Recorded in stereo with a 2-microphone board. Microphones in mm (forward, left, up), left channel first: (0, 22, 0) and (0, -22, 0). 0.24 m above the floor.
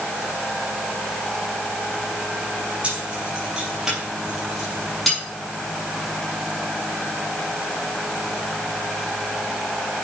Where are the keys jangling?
25° right (ahead or behind), 4.5 m; by 5.2 s 5° left (ahead or behind), 5 m.